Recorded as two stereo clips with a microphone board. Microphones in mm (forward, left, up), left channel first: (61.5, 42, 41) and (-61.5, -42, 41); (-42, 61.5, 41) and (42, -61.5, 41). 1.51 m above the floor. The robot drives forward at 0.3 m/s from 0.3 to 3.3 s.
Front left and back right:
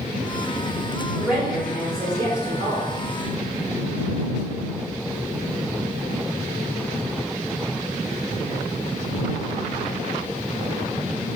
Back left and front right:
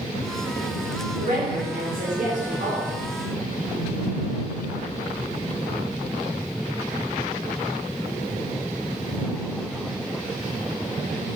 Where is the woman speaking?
55° right, 0.7 m; by 2.9 s 100° right, 0.6 m.